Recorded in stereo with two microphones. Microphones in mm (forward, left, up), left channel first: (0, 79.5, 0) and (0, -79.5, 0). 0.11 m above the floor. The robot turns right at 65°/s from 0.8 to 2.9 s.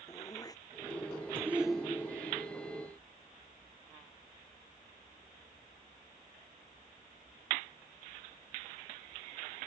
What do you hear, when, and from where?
0.1 s throat clearing: 25° left (ahead or behind); by 1.6 s 25° right (ahead or behind)
1.4 s a shout: 20° right; by 2.4 s 45° left